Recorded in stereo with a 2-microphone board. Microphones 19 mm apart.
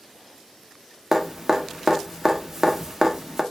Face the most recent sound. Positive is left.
turn(degrees=-20)  # may be behind; listen again after turning